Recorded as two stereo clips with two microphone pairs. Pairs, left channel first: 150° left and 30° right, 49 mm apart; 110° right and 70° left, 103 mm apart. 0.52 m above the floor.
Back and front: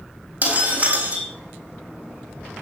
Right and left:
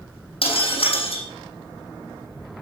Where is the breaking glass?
85° right, 6 m.